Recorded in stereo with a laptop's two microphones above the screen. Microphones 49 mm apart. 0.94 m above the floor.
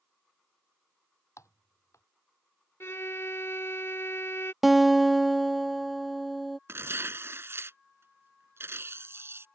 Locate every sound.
1.4 s typing on a keyboard: 85° left
2.8 s a violin: 60° left (ahead or behind)
4.6 s a guitar: 5° right (ahead or behind)
6.7 s tearing paper: 55° right (ahead or behind)